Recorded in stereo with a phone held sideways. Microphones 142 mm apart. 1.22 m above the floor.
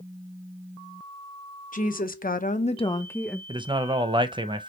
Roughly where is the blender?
No blender in this recording.